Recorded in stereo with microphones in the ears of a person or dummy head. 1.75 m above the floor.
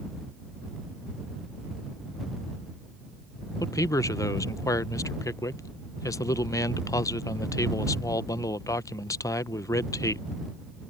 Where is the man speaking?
15° left (ahead or behind).